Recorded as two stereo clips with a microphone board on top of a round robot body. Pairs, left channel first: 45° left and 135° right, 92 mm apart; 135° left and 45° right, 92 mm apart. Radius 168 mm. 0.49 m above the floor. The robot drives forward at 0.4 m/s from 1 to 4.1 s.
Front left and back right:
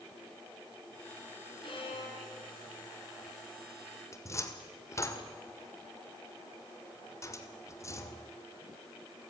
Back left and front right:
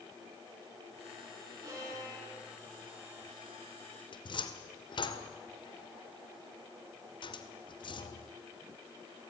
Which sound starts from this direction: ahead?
A violin, at 1.6 s.